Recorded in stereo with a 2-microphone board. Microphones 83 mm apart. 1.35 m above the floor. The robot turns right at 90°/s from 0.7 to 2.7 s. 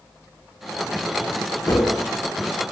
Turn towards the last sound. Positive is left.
turn(degrees=-145)